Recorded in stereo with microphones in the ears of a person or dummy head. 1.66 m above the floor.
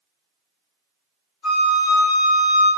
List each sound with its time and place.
1.4 s a flute: 30° left (ahead or behind), 1.5 m